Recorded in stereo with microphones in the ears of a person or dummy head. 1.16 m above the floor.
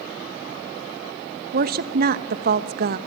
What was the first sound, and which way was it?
A woman speaking, 50° right (ahead or behind).